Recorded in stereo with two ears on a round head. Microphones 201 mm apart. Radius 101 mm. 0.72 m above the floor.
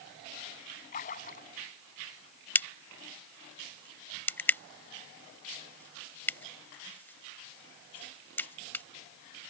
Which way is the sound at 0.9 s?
35° left (ahead or behind).